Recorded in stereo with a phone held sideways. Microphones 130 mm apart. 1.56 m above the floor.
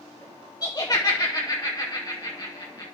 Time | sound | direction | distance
0.6 | laughter | 30° left (ahead or behind) | 0.8 m